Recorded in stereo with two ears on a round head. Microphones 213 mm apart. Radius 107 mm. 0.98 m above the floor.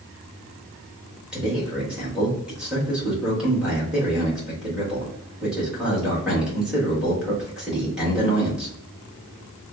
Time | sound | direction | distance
1.3 | a man speaking | 5° right (ahead or behind) | 1.5 m